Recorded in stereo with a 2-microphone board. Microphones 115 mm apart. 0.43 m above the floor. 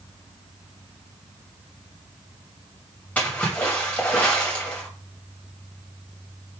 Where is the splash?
10° left (ahead or behind), 2.5 m.